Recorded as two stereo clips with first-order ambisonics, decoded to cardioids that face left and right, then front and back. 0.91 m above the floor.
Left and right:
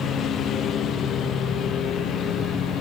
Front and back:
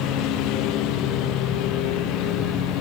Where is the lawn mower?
30° left.